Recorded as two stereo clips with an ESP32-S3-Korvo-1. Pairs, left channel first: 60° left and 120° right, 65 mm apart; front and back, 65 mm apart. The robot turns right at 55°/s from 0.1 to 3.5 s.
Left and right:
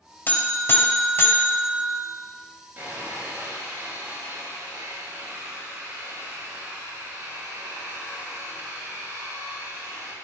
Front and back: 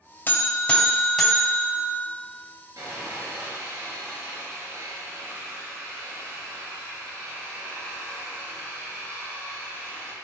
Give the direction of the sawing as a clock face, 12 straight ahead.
6 o'clock.